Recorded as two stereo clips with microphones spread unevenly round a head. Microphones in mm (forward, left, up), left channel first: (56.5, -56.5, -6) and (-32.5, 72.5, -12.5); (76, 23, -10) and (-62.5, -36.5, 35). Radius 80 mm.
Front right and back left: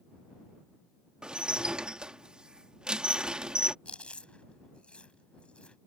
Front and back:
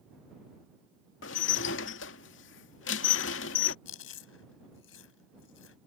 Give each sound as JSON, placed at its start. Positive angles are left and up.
{"t": 1.2, "sound": "dishes clattering", "azimuth_deg": 40}
{"t": 3.9, "sound": "chewing", "azimuth_deg": 25}